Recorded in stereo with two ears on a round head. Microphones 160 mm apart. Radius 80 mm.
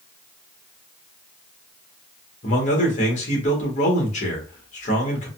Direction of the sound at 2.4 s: 45° left (ahead or behind).